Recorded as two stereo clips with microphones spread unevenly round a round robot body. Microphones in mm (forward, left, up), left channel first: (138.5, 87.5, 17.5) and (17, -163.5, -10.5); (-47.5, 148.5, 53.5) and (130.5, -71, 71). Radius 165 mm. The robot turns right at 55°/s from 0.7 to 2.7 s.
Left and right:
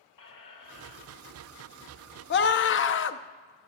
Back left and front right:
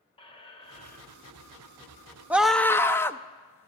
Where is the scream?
35° left, 0.6 m; by 3.7 s 55° left, 0.6 m.